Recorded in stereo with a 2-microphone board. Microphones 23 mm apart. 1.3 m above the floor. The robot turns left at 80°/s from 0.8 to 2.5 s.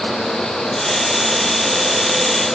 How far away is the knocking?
No knocking in this recording.